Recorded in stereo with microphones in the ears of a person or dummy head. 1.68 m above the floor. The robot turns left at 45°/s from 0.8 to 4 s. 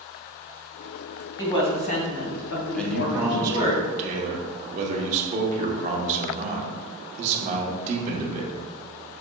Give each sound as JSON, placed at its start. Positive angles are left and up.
{"t": 1.4, "sound": "a woman speaking", "azimuth_deg": 165, "distance_m": 1.3}
{"t": 2.8, "sound": "a man speaking", "azimuth_deg": 15, "distance_m": 0.9}